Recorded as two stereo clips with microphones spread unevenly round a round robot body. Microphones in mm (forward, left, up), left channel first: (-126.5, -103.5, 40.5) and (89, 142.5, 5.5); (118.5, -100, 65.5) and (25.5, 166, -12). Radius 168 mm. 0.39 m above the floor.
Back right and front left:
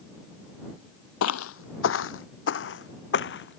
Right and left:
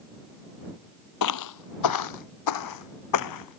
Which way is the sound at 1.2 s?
85° right.